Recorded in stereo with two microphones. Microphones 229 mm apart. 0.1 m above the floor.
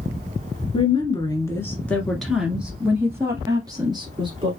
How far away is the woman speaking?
About 1.6 m.